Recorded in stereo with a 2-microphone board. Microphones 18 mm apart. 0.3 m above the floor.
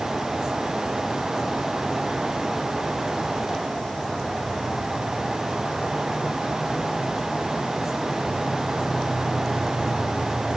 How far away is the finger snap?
I don't hear a finger snap.